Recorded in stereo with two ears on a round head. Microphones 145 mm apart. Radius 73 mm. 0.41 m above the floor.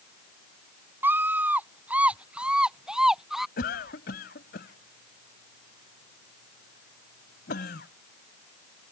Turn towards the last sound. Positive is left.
turn(degrees=65)  # may be behind; listen again after turning